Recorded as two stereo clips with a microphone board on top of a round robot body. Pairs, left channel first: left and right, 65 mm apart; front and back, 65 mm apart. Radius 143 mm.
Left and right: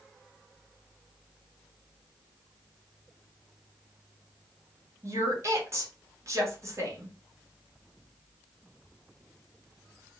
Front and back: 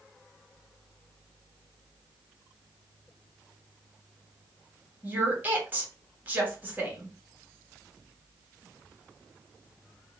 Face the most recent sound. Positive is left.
turn(degrees=-120)